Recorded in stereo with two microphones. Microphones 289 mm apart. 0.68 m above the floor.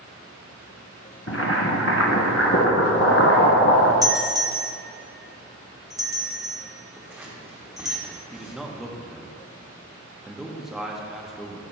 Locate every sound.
1.3 s boiling: 55° left (ahead or behind), 1.0 m
4.0 s a doorbell: 10° right (ahead or behind), 1.2 m
7.0 s scissors: 5° right (ahead or behind), 1.3 m
8.3 s a man speaking: centre (ahead or behind), 0.7 m